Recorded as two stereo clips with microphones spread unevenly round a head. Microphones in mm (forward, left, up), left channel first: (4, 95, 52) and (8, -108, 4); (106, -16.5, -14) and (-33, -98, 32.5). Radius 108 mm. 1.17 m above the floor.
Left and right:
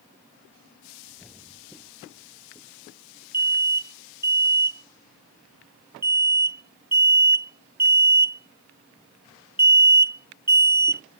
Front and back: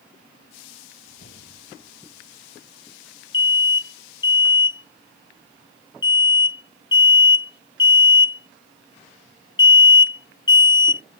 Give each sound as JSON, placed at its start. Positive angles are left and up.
{"t": 1.1, "sound": "a whoosh", "azimuth_deg": 5}
{"t": 3.3, "sound": "an alarm", "azimuth_deg": -20}